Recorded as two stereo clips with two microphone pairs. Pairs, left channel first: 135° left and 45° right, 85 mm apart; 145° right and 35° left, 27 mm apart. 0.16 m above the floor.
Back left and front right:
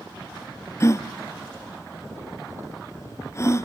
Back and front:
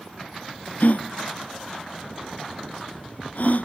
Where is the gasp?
170° right, 1.0 m.